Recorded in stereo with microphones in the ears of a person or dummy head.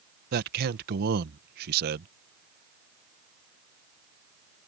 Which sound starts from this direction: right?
A man speaking, at 0.3 s.